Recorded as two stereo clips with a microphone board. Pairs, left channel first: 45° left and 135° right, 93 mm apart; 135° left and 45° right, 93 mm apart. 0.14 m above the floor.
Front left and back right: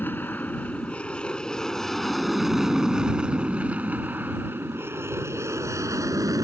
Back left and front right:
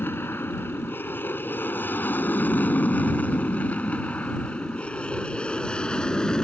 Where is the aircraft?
95° left; by 6.4 s 150° right.